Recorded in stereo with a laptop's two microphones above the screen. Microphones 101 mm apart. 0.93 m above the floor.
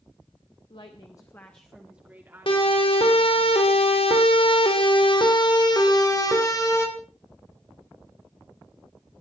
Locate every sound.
0.7 s a woman speaking: 55° left (ahead or behind), 1.4 m; by 3.5 s 40° right (ahead or behind), 3 m
2.5 s a siren: 60° left (ahead or behind), 3.5 m; by 6.9 s 30° left (ahead or behind), 4.5 m